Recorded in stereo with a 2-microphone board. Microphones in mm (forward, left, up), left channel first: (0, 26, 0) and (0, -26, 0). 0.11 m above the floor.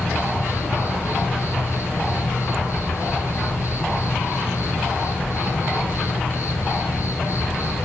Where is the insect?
75° left (ahead or behind), 3 m.